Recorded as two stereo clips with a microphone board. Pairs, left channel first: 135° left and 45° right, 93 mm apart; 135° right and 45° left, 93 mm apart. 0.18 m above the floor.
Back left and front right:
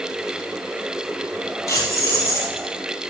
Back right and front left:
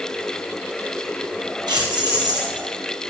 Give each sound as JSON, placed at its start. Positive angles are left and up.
{"t": 1.7, "sound": "keys jangling", "azimuth_deg": 80, "distance_m": 4.0}